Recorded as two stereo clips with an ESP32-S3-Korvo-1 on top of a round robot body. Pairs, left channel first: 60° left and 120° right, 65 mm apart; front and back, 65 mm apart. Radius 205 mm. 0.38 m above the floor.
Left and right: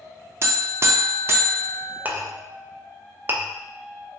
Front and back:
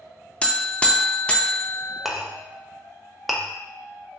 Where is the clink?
90° right, 0.8 m.